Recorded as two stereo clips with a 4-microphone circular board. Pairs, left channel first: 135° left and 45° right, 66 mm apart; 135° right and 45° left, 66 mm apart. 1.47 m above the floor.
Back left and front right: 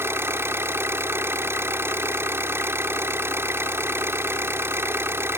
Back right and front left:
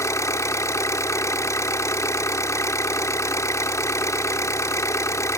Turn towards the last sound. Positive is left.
turn(degrees=-95)